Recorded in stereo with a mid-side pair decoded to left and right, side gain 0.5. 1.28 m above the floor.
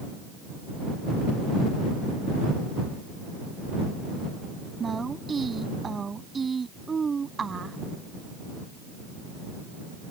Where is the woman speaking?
30° right.